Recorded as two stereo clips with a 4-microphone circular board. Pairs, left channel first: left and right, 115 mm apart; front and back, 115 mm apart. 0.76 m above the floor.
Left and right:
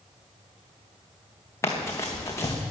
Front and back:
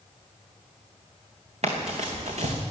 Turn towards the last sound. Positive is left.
turn(degrees=155)